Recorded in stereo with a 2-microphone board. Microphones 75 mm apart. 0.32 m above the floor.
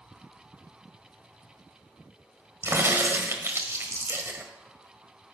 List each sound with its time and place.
2.6 s a crack: 35° right (ahead or behind), 1.4 m